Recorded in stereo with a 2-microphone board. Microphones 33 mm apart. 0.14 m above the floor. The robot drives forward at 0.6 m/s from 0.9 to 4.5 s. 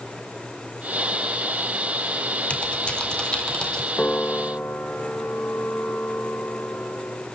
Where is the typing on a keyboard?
35° left (ahead or behind), 1.3 m; by 3.9 s 25° left (ahead or behind), 2 m.